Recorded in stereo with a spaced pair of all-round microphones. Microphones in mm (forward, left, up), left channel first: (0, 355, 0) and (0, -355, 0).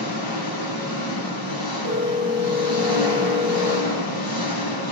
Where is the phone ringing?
55° left (ahead or behind), 4.5 m.